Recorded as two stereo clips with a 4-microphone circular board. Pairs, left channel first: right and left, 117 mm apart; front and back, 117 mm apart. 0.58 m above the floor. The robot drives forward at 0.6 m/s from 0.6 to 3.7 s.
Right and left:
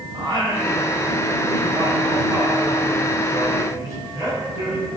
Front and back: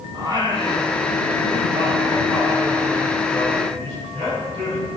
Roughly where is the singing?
Behind left.